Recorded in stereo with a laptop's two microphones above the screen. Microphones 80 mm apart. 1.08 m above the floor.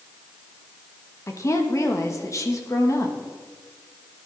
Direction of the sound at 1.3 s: 40° left (ahead or behind).